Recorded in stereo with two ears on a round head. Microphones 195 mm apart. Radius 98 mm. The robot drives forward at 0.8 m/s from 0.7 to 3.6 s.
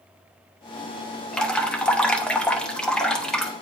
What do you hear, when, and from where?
1.3 s dripping: 5° left (ahead or behind), 1.0 m